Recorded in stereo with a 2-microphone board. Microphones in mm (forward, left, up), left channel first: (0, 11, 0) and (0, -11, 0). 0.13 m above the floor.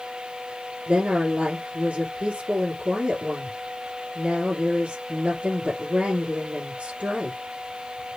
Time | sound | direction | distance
0.9 | a woman speaking | 65° right (ahead or behind) | 3 m